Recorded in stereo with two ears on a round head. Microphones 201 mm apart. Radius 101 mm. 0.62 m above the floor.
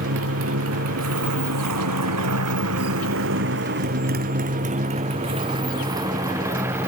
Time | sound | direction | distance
0.0 | a motorcycle | 60° right (ahead or behind) | ?